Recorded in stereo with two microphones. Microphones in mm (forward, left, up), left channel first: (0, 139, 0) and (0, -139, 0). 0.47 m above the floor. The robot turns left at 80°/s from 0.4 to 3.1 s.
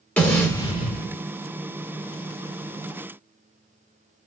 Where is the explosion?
170° left, 1.2 m; by 1.2 s 105° left, 1.2 m.